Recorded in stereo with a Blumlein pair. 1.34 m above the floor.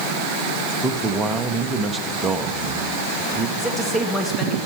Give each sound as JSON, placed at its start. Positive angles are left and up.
{"t": 0.8, "sound": "a man speaking", "azimuth_deg": -15, "distance_m": 1.3}
{"t": 3.6, "sound": "a man speaking", "azimuth_deg": 0, "distance_m": 2.5}